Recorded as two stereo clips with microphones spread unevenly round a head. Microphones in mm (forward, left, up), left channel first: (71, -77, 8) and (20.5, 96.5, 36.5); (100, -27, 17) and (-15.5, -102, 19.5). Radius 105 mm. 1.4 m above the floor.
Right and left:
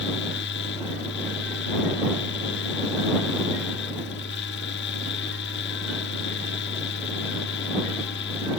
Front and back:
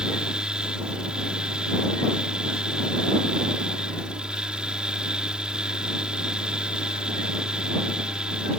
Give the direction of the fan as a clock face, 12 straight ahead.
2 o'clock.